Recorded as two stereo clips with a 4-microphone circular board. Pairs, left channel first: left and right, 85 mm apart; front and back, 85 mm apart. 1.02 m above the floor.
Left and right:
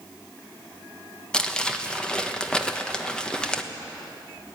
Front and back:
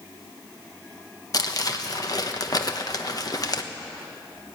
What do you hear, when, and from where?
1.3 s crumpling: 15° left, 1.1 m